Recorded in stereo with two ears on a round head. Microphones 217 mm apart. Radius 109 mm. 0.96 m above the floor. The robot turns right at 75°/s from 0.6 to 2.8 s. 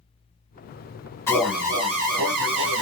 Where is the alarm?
165° left, 1.0 m; by 2.8 s 80° right, 1.0 m.